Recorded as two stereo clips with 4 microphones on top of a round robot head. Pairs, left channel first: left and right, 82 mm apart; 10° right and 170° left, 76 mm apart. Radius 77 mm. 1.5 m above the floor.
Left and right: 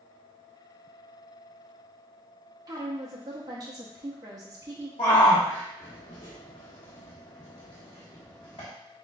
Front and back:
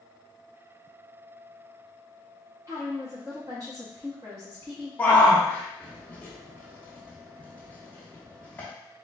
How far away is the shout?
About 0.7 m.